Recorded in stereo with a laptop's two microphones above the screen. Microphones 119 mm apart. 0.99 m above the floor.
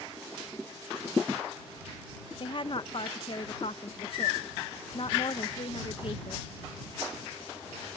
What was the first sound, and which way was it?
A woman speaking, 50° left (ahead or behind).